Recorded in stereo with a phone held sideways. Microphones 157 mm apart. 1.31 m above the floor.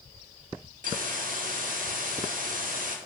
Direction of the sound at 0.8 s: 65° right (ahead or behind).